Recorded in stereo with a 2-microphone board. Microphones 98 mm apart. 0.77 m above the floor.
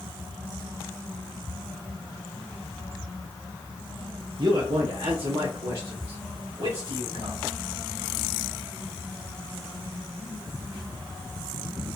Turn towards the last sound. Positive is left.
turn(degrees=-75)  # may be behind; listen again after turning